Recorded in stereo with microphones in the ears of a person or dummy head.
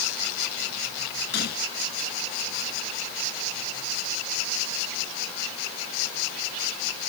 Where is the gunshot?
55° left (ahead or behind).